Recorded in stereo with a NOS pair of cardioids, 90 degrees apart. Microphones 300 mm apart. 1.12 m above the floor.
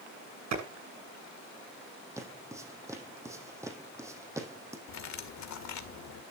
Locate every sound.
0.5 s a clap: 60° right, 8.5 m
2.2 s footsteps: 10° right, 3.5 m
4.9 s cutlery clinking: 65° left, 2 m